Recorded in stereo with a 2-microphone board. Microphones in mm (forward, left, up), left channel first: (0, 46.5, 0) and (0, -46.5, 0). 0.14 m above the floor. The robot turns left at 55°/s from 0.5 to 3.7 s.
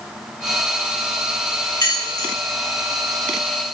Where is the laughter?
I don't hear laughter.